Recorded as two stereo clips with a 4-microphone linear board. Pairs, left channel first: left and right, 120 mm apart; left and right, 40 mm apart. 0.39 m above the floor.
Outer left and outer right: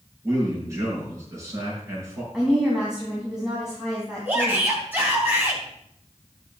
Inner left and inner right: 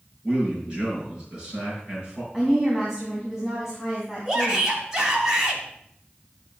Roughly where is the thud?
I don't hear a thud.